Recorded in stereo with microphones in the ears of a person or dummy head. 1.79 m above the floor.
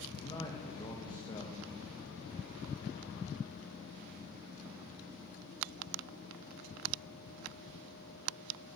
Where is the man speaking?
25° left (ahead or behind), 2.5 m.